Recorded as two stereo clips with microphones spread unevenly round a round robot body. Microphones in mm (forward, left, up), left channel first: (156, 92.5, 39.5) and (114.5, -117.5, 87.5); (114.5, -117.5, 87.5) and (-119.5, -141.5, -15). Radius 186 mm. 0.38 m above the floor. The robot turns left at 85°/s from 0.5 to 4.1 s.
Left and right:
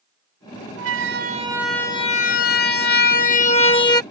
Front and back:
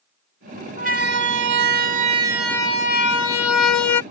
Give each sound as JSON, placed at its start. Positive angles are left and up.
{"t": 0.8, "sound": "a siren", "azimuth_deg": -125}